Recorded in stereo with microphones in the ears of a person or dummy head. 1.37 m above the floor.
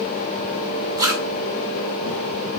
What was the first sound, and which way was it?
A zipper, 20° right (ahead or behind).